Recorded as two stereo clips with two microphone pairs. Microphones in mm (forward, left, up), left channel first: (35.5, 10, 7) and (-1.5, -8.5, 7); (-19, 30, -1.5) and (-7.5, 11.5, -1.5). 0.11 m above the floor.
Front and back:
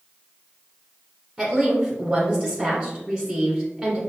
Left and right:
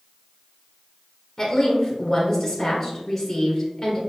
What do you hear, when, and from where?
1.4 s a woman speaking: 175° left, 1.2 m